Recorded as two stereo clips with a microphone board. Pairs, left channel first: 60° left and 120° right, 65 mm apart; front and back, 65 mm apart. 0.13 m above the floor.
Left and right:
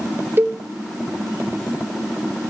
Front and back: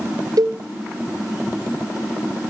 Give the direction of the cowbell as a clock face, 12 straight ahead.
6 o'clock.